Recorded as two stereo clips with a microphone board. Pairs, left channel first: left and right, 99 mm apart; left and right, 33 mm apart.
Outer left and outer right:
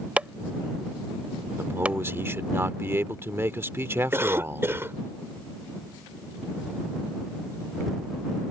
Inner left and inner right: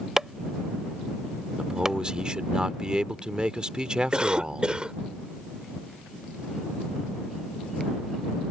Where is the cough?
25° right (ahead or behind).